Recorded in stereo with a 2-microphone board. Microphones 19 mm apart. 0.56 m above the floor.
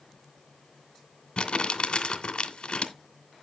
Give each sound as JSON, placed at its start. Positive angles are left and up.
{"t": 1.4, "sound": "crumpling", "side_deg": 50, "distance_m": 2.0}